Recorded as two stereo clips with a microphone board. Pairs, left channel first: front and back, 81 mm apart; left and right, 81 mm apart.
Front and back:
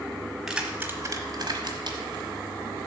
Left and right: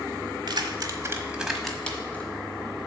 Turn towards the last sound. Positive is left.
turn(degrees=160)